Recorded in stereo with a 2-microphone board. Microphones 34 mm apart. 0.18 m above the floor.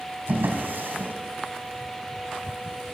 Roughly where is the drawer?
Right.